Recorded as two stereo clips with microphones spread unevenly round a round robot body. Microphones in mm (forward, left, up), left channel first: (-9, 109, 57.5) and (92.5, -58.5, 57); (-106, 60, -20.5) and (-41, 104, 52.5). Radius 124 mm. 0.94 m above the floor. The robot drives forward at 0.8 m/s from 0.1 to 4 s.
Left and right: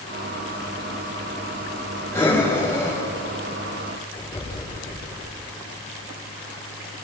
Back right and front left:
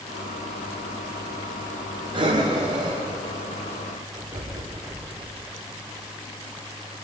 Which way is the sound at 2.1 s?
45° left.